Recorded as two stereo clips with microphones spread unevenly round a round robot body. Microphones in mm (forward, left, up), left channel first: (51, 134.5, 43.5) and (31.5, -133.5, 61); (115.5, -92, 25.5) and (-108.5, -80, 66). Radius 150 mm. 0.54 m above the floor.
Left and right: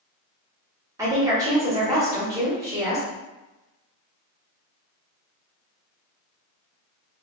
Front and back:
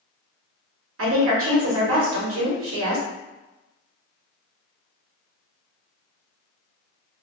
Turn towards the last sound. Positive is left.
turn(degrees=-175)